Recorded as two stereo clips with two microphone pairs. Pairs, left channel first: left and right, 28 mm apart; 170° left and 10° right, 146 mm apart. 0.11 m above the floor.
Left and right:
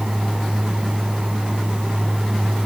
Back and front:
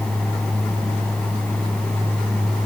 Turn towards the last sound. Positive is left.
No sound to turn to.